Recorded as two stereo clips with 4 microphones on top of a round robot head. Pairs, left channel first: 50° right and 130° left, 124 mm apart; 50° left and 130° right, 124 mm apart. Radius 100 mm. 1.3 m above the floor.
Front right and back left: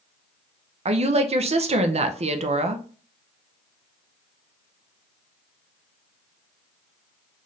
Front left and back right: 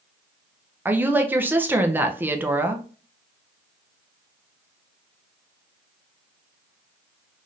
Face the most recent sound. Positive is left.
turn(degrees=155)